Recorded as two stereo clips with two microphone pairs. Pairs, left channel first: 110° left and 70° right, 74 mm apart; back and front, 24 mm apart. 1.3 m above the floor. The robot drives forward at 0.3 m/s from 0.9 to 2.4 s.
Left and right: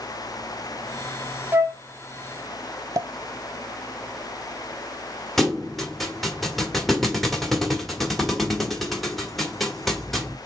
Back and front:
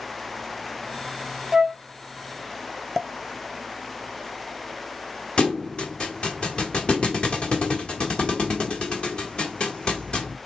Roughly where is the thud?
Behind.